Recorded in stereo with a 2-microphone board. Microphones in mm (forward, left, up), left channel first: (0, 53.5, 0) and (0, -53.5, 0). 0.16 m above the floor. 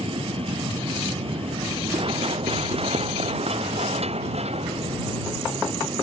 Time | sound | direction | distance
0.0 | an aircraft | 60° right (ahead or behind) | ?
1.9 | running footsteps | 55° right (ahead or behind) | ?